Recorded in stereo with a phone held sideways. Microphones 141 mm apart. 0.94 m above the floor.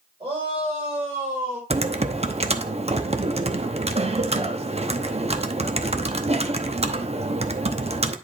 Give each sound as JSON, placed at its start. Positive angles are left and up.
{"t": 0.2, "sound": "a shout", "side_deg": -35, "distance_m": 4.5}
{"t": 1.7, "sound": "typing on a keyboard", "side_deg": -50, "distance_m": 0.7}